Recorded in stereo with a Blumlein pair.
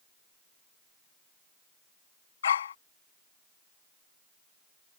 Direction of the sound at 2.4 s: 65° left.